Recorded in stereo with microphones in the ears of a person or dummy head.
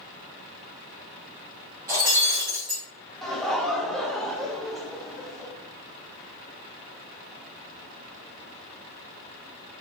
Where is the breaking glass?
20° right (ahead or behind), 1.9 m.